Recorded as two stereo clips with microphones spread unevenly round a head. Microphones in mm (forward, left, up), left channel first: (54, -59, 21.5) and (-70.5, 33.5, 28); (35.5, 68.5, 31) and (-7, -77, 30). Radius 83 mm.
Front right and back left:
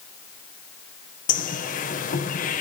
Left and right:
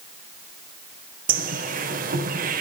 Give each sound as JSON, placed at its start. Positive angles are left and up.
{"t": 1.3, "sound": "a bird", "azimuth_deg": -75, "distance_m": 3.5}